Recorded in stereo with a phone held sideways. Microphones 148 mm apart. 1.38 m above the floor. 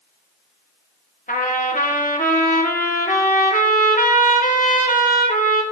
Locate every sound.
1.3 s a trumpet: 60° left (ahead or behind), 1.4 m